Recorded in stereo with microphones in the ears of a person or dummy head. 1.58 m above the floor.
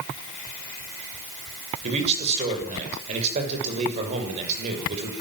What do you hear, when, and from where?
1.8 s a man speaking: 35° right (ahead or behind), 6.5 m